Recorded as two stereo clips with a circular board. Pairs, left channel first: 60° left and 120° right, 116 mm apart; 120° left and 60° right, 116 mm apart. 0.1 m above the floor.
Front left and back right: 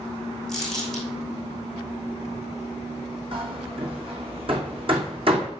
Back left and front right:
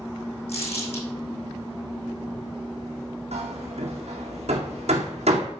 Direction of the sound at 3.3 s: 80° right.